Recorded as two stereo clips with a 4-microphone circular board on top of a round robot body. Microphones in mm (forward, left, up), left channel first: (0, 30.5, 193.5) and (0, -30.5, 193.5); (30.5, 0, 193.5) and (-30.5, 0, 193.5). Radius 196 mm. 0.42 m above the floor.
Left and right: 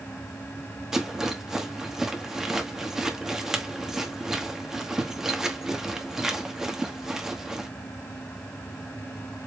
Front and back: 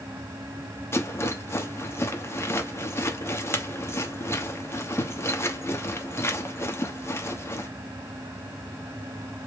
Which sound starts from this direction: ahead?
A rattle, at 0.9 s.